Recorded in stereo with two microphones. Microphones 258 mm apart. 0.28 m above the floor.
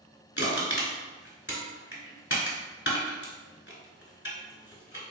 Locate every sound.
0.4 s crushing: 45° left (ahead or behind), 1.1 m